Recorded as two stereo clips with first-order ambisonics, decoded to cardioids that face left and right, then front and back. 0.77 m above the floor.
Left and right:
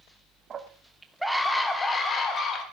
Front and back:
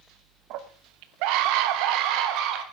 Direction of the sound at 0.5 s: 150° right.